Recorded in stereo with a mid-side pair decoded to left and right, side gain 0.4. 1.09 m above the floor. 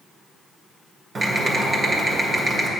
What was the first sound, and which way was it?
Typing on a keyboard, 40° right.